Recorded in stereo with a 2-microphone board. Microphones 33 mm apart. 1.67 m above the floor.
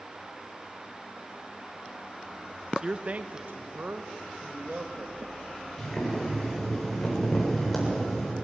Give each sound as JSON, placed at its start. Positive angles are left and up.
{"t": 2.8, "sound": "a man speaking", "side_deg": -20, "distance_m": 0.7}
{"t": 5.8, "sound": "boiling", "side_deg": 5, "distance_m": 7.5}